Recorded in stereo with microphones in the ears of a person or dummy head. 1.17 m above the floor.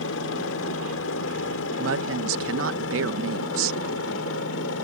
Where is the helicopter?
70° left (ahead or behind); by 4.8 s 75° left (ahead or behind).